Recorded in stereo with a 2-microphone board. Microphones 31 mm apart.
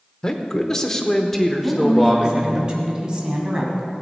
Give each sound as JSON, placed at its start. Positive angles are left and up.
{"t": 0.2, "sound": "a man speaking", "side_deg": 20, "distance_m": 1.0}
{"t": 1.6, "sound": "a woman speaking", "side_deg": -25, "distance_m": 2.5}